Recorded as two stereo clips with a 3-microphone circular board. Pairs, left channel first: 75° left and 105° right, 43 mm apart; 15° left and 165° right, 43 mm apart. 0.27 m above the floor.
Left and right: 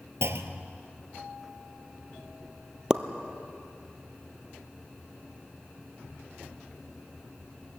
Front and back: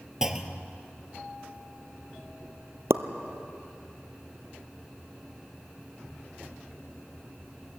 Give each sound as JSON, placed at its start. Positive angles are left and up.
{"t": 0.2, "sound": "a clunk", "azimuth_deg": -85, "distance_m": 1.4}
{"t": 2.9, "sound": "a pop", "azimuth_deg": -175, "distance_m": 1.2}